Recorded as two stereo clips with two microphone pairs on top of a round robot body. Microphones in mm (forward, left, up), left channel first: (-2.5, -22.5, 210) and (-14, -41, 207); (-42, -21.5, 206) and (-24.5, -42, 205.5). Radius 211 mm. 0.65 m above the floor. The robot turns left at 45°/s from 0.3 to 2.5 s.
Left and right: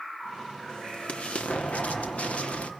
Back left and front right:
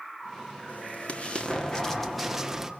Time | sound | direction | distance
0.7 | an explosion | 110° left | 2 m